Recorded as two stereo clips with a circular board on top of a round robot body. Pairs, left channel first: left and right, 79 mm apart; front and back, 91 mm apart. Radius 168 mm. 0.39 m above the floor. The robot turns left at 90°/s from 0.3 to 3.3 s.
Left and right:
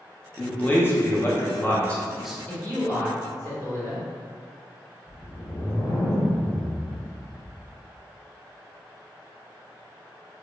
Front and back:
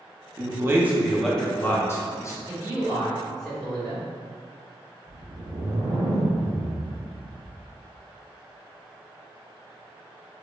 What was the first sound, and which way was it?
A man speaking, 165° left.